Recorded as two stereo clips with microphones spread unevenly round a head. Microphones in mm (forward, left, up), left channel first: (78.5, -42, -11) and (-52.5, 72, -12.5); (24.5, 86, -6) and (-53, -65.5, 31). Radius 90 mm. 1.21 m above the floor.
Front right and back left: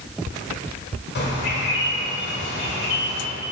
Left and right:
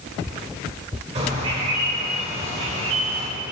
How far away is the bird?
About 1.8 m.